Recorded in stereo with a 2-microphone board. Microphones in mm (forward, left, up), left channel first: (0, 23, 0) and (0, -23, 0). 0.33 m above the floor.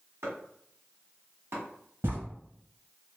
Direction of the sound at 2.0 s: 60° right (ahead or behind).